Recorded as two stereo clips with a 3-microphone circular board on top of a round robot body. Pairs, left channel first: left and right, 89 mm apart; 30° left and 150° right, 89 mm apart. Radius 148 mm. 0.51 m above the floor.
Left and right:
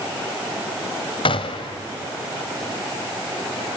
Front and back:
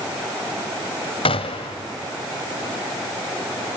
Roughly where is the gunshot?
Ahead left.